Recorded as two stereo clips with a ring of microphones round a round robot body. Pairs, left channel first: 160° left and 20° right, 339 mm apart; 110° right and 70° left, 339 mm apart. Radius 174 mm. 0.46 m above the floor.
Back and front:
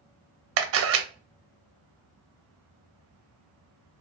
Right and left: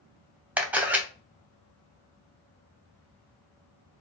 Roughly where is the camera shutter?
Ahead.